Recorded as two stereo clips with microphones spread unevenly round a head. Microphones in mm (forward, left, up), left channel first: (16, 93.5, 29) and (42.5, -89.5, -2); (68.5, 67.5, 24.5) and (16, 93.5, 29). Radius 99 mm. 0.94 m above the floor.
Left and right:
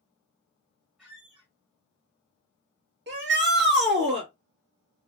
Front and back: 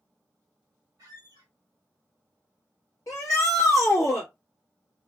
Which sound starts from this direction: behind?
A squeak, at 1.0 s.